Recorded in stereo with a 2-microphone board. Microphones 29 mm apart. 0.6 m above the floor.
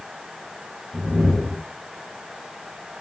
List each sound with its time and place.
0.9 s a whoosh: 60° right (ahead or behind), 1.5 m